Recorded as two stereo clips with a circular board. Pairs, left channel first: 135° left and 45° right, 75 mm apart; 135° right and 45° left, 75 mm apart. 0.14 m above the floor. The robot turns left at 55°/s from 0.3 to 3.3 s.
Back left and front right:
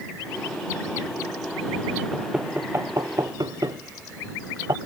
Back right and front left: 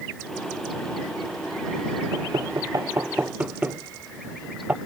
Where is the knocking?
40° left; by 4.8 s 25° right.